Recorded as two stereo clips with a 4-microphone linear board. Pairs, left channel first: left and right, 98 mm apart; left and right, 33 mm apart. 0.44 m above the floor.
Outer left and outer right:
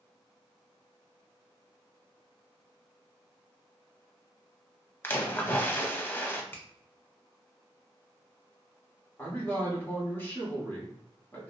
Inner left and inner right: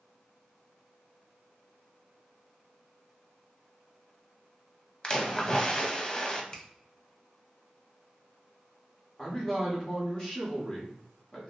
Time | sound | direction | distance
5.0 | a splash | 25° left (ahead or behind) | 0.7 m
6.5 | a finger snap | 20° left (ahead or behind) | 0.7 m
9.2 | a man speaking | 20° left (ahead or behind) | 1.3 m